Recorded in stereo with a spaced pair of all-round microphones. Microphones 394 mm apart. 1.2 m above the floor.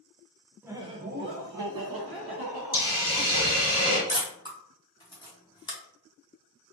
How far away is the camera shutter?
About 0.8 m.